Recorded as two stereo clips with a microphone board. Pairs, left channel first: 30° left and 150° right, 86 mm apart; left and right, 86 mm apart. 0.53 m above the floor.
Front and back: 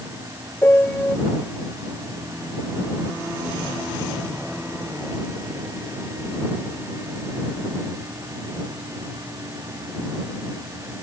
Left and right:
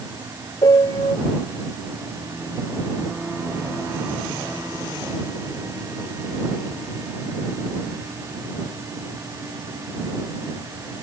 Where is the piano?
90° left.